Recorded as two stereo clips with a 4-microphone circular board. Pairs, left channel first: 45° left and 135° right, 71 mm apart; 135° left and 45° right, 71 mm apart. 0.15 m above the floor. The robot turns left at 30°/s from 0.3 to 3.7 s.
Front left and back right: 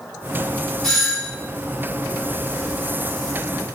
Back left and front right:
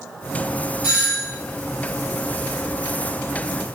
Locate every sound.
0.8 s a doorbell: 25° right, 1.5 m; by 1.3 s 40° right, 1.5 m